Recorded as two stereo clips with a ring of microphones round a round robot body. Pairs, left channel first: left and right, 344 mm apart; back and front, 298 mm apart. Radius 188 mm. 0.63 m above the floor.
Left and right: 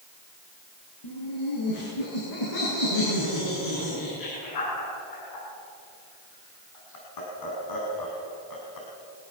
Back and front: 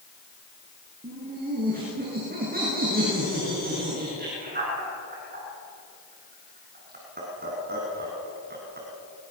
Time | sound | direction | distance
1.0 | laughter | 60° left | 9.5 m